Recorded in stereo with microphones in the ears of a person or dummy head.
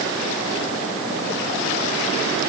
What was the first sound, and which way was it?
Only background noise.